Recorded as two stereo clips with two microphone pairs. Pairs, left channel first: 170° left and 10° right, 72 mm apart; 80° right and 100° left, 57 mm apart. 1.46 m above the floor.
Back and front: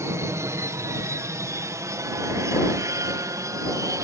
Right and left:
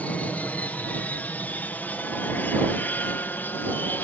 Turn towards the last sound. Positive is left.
turn(degrees=-30)